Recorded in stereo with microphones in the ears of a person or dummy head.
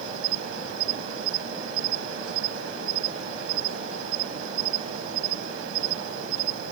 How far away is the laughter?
No laughter in this recording.